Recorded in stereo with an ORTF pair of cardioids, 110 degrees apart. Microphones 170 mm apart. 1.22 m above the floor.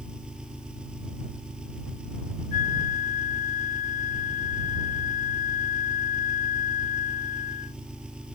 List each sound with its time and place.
0.0 s an engine running: 5° right
2.5 s a flute: 55° left